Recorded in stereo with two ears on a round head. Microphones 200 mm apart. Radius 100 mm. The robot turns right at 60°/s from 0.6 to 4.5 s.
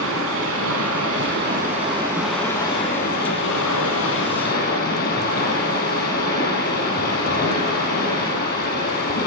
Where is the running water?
100° right, 5 m; by 9.3 s 135° left, 5 m.